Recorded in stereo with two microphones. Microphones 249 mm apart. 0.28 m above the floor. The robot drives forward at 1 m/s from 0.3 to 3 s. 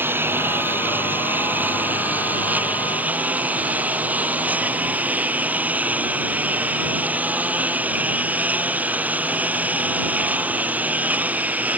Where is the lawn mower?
10° right (ahead or behind); by 11.8 s 5° right (ahead or behind).